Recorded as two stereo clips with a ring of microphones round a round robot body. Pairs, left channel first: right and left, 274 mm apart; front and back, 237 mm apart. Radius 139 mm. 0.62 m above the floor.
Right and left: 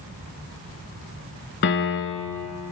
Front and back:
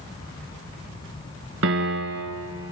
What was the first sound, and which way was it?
A piano, 135° right.